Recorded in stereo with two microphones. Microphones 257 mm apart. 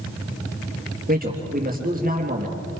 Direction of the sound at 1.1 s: 35° right (ahead or behind).